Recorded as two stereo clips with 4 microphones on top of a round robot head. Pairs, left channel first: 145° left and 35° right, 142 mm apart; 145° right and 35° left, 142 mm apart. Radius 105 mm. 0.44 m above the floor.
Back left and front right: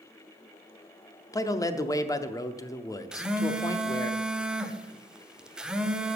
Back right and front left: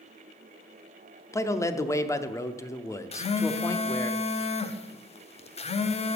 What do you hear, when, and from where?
1.3 s a man speaking: 175° left, 0.8 m
3.1 s a phone buzzing: 120° right, 0.8 m